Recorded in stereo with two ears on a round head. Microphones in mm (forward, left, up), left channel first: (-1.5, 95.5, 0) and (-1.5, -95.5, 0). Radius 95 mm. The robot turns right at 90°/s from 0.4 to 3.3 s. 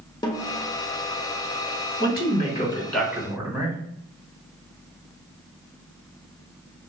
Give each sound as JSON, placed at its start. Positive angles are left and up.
{"t": 0.2, "sound": "a snare drum", "side_deg": 20, "distance_m": 0.9}
{"t": 2.0, "sound": "a man speaking", "azimuth_deg": 85, "distance_m": 1.5}